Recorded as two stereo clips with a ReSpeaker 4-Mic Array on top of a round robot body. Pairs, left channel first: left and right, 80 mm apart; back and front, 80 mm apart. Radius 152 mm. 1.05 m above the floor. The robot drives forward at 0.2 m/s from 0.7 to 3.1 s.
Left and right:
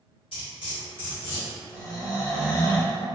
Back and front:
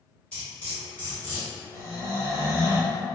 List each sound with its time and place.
0.3 s cutlery clinking: 105° left, 0.9 m; by 1.5 s 110° left, 1.0 m
1.7 s snoring: 130° left, 0.9 m; by 3.0 s 140° left, 1.1 m